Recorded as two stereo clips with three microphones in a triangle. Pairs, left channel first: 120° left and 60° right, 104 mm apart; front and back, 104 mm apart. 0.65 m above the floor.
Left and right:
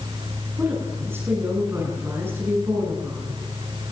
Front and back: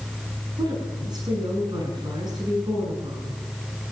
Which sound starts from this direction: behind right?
A woman speaking, at 0.6 s.